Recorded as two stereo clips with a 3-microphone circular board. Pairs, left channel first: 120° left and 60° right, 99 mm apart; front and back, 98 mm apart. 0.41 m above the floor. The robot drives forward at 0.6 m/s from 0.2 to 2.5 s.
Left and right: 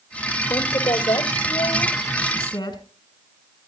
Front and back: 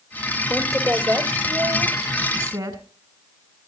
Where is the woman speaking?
125° left, 1.6 m; by 2.8 s 155° left, 2.5 m.